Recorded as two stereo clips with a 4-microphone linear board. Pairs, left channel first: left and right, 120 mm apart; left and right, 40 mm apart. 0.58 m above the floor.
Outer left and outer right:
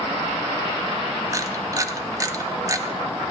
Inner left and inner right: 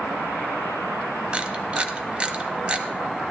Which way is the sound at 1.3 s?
30° right (ahead or behind).